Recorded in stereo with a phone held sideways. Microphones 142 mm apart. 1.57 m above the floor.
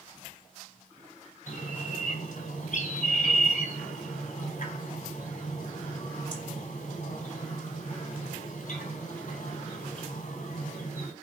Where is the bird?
60° left (ahead or behind), 4 m.